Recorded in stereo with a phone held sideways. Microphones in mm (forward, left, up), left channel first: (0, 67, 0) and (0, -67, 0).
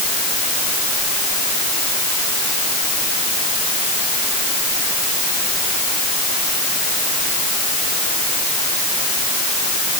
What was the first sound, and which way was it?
Only background noise.